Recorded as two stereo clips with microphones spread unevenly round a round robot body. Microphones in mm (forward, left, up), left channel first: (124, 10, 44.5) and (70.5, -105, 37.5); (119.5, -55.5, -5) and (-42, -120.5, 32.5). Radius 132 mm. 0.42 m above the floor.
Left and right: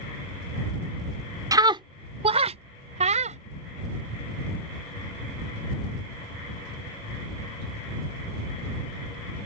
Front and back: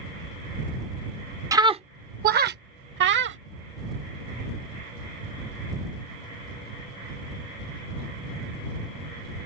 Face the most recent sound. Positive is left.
turn(degrees=-150)